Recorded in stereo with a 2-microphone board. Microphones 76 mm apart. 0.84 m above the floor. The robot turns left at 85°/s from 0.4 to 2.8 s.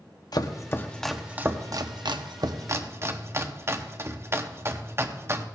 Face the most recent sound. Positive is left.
turn(degrees=-35)  # may be behind; listen again after turning